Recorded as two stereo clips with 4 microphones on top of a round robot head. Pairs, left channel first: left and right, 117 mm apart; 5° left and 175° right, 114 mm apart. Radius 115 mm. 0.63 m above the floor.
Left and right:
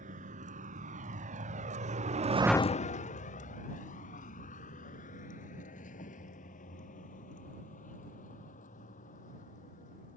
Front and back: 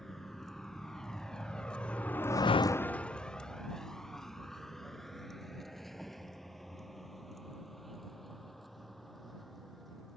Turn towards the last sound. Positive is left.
turn(degrees=90)